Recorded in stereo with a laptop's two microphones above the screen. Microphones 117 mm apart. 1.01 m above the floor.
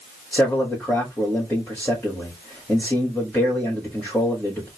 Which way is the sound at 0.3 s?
15° left (ahead or behind).